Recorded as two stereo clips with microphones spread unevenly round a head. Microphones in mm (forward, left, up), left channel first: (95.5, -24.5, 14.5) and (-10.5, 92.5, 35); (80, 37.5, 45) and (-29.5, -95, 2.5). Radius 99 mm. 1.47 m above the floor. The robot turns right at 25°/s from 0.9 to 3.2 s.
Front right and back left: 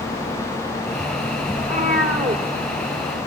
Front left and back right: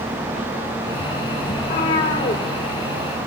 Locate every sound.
1.6 s a cat meowing: 95° left, 2 m; by 2.4 s 115° left, 2 m